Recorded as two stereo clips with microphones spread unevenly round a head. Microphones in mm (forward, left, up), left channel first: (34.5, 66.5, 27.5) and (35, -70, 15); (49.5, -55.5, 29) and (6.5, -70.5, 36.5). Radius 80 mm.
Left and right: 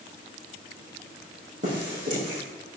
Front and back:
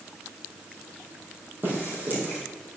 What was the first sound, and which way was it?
Footsteps, 125° right.